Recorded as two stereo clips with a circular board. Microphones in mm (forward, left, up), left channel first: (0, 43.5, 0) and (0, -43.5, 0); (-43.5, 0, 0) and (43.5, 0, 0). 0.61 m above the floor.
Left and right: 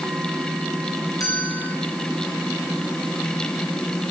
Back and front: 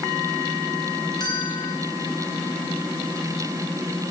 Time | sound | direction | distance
1.2 | a bell | 140° left | 5 m